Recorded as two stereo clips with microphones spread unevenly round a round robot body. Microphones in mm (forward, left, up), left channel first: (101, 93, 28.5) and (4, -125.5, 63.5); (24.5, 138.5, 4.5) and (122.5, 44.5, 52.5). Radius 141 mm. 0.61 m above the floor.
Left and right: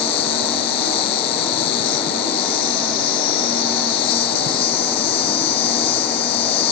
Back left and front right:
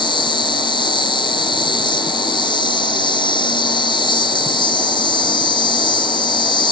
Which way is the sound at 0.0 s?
80° left.